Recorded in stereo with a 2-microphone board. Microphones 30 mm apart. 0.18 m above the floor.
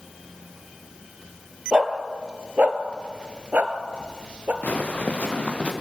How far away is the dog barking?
About 1.7 m.